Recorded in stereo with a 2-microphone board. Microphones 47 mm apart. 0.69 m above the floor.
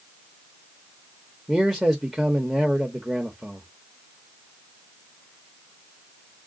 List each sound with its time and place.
1.5 s a man speaking: 5° right (ahead or behind), 0.9 m